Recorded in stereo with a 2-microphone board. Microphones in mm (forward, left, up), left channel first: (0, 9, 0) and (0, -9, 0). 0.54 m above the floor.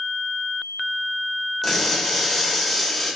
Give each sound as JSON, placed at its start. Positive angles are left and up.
{"t": 1.6, "sound": "crushing", "side_deg": 10, "distance_m": 1.3}